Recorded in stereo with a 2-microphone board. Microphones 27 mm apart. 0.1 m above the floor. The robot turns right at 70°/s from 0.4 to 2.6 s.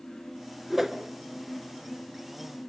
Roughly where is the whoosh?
Centre.